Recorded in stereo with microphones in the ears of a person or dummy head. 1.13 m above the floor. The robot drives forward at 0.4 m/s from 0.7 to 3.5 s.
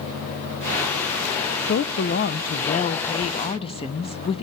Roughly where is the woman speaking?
Left.